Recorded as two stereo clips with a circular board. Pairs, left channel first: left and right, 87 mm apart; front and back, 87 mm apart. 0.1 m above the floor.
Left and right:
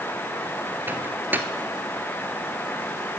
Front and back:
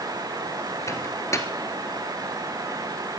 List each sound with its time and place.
0.9 s a microwave: 35° right, 1.4 m